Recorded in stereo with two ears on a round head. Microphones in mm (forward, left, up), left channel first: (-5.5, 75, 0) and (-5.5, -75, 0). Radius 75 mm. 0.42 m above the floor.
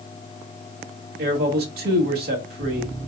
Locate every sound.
1.2 s a man speaking: 65° right (ahead or behind), 1.7 m